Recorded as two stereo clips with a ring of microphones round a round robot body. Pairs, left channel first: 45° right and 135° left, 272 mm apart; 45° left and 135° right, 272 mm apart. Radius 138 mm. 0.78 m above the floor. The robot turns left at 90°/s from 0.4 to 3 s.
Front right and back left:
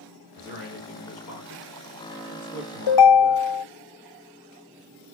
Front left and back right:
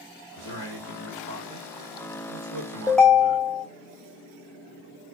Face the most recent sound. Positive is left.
turn(degrees=-45)